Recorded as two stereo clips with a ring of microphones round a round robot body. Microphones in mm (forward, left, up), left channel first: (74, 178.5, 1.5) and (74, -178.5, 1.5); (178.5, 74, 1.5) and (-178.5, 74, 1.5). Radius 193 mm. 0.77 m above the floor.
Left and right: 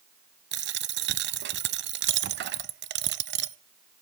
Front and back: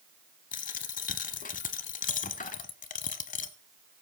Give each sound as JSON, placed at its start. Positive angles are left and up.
{"t": 0.5, "sound": "a dropped coin", "azimuth_deg": -55, "distance_m": 0.7}